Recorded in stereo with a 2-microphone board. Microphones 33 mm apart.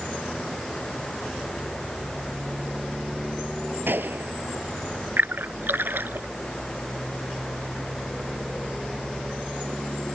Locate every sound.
3.9 s a gunshot: 85° right
5.2 s a splash: 85° right